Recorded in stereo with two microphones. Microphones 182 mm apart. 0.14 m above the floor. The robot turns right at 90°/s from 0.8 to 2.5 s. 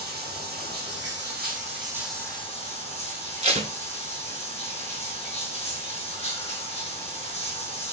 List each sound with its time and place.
0.0 s running water: 115° right, 1.9 m; by 7.9 s 35° left, 1.9 m
3.4 s tape being pulled: 40° right (ahead or behind), 0.7 m